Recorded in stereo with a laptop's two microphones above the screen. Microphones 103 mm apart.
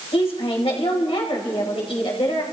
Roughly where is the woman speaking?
Left.